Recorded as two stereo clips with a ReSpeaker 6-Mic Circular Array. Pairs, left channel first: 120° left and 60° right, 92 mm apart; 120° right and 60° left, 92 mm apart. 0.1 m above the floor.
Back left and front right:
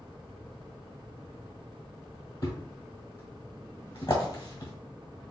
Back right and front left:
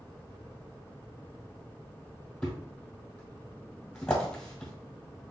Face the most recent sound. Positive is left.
turn(degrees=160)